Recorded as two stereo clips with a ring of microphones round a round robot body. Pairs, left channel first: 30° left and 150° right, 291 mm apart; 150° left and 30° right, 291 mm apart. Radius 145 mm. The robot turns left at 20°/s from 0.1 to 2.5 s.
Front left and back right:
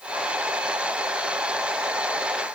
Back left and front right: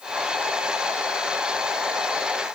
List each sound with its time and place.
Only background noise.